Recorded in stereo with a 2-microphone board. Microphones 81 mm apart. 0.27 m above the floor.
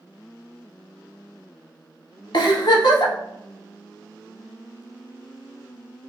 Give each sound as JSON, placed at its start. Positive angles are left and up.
{"t": 2.3, "sound": "a giggle", "side_deg": 65, "distance_m": 0.6}